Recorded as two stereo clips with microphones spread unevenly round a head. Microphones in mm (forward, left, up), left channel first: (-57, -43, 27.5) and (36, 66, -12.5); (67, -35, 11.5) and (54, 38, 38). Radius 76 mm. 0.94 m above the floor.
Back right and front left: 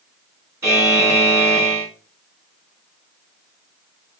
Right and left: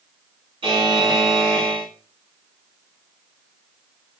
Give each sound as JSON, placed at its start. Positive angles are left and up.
{"t": 0.6, "sound": "a buzzer", "azimuth_deg": 110, "distance_m": 1.3}